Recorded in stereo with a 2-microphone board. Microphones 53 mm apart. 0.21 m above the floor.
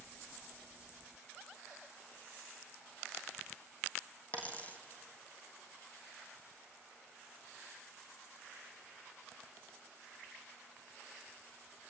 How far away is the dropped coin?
About 1.5 m.